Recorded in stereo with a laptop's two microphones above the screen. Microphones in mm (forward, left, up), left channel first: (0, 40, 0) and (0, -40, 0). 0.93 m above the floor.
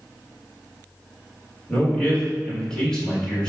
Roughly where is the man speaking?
Centre.